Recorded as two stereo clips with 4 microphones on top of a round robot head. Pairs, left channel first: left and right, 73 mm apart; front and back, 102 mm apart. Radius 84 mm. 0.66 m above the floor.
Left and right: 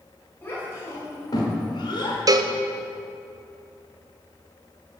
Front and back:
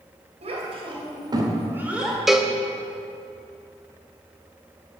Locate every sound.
0.4 s a child speaking: 160° left, 2.5 m; by 2.2 s 90° left, 1.9 m
2.3 s a cowbell: 90° right, 0.6 m